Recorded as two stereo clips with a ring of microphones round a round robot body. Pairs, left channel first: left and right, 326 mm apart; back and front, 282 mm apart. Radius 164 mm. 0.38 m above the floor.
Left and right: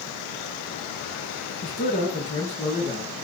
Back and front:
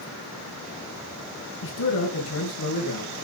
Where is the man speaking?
155° left, 6 m; by 3.2 s 160° left, 7.5 m.